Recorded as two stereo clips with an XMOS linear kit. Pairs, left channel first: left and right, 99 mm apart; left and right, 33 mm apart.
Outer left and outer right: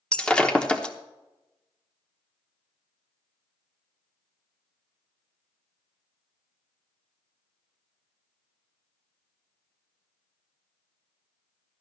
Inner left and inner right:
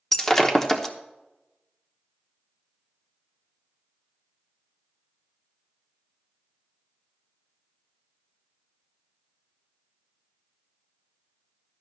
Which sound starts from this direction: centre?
Breaking glass, at 0.1 s.